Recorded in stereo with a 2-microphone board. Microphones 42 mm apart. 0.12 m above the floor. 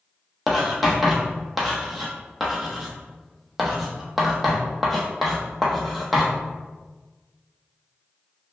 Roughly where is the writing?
Centre.